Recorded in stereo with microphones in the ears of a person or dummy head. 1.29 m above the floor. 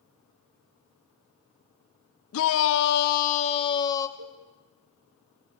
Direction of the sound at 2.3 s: 80° left.